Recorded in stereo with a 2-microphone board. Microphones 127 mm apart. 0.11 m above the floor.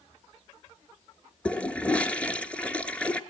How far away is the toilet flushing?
About 1.3 m.